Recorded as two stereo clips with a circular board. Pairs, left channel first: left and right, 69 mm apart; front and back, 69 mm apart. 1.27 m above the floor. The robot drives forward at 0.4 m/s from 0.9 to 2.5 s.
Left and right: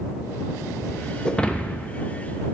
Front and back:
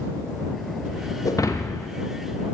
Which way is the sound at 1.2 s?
15° left.